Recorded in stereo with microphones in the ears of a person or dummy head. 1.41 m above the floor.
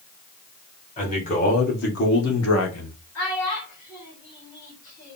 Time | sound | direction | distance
1.0 | a man speaking | 35° left (ahead or behind) | 1.9 m
3.1 | a child speaking | 60° left (ahead or behind) | 1.7 m